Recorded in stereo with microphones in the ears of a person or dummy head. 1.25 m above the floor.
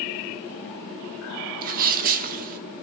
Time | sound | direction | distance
1.6 | a sneeze | 45° right (ahead or behind) | 1.5 m